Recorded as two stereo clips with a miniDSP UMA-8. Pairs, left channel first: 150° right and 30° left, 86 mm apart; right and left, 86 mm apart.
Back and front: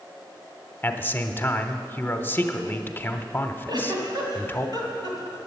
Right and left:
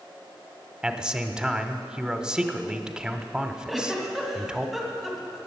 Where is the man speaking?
165° left, 0.9 m.